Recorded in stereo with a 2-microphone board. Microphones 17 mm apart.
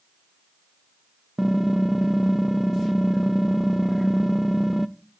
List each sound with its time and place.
1.4 s typing on a keyboard: 10° right (ahead or behind), 0.5 m